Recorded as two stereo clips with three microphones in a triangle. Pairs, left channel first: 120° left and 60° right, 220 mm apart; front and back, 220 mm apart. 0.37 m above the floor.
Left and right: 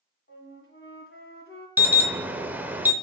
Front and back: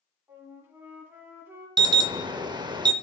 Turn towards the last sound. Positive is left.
turn(degrees=-130)